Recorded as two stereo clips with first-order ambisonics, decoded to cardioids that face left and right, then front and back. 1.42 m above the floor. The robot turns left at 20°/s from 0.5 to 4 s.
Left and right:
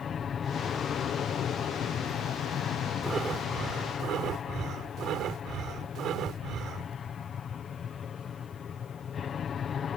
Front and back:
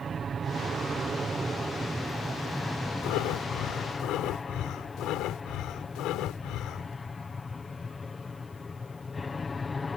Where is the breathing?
20° right; by 7.0 s 35° right.